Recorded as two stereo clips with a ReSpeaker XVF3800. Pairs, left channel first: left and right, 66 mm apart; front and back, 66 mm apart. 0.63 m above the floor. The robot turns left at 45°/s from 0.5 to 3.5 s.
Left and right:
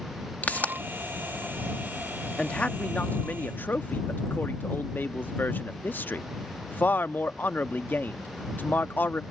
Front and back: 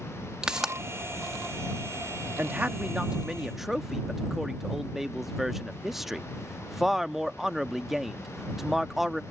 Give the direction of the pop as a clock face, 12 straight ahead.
8 o'clock.